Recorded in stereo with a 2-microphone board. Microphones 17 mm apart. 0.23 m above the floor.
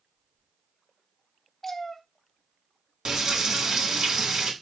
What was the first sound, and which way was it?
A cat meowing, 20° left (ahead or behind).